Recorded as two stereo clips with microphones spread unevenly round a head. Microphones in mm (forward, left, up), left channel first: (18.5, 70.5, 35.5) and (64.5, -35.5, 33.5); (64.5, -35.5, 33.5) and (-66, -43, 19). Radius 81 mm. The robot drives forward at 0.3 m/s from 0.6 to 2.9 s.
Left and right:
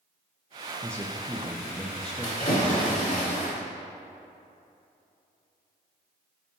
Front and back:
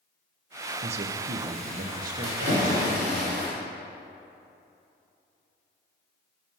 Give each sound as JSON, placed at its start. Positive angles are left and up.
{"t": 0.8, "sound": "a man speaking", "azimuth_deg": -140, "distance_m": 0.5}
{"t": 2.2, "sound": "a splash", "azimuth_deg": 160, "distance_m": 2.0}